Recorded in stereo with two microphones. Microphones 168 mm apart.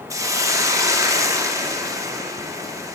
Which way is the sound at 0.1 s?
20° right (ahead or behind).